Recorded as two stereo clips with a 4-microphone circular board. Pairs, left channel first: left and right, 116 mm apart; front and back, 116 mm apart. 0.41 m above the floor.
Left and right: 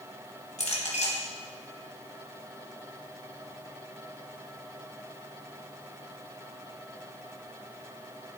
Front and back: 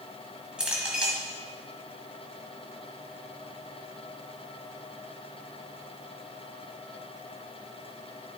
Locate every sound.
0.6 s a clink: 100° left, 1.7 m